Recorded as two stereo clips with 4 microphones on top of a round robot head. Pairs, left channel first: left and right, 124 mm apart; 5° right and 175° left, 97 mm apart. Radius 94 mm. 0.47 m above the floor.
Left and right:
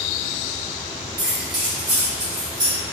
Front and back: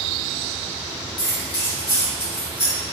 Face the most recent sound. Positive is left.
turn(degrees=-35)